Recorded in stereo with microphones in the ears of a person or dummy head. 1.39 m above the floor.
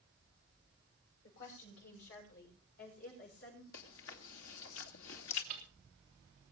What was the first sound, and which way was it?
A woman speaking, 60° left (ahead or behind).